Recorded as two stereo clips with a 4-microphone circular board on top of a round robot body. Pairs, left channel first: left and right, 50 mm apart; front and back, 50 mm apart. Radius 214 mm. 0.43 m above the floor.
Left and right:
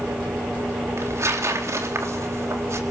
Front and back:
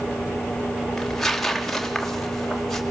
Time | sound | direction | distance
1.0 | tearing paper | 85° right | 3.5 m